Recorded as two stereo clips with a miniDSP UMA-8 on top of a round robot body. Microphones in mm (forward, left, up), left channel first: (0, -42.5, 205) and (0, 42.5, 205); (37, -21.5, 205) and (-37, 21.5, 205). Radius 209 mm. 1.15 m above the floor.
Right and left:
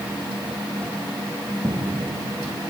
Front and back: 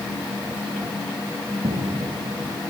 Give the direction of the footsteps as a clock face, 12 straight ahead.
7 o'clock.